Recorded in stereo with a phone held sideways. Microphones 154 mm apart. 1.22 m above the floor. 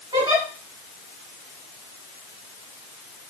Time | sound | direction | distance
0.1 | a giggle | 25° right (ahead or behind) | 1.9 m